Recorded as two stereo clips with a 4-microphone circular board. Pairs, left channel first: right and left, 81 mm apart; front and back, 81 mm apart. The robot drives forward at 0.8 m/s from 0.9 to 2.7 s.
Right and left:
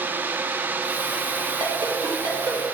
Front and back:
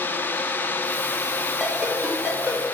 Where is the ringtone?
90° left, 1.8 m; by 2.6 s 115° left, 2.0 m.